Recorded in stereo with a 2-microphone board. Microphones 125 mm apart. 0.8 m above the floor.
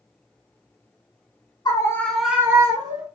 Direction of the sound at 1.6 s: 35° left (ahead or behind).